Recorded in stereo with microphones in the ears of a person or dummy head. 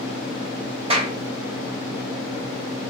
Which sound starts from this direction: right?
A clap, at 0.9 s.